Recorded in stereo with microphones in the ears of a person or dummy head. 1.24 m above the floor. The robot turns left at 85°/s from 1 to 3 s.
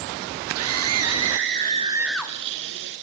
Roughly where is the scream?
Right.